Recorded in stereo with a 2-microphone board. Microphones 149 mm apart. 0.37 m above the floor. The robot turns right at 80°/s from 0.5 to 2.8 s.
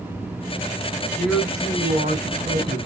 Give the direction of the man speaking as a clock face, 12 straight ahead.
6 o'clock.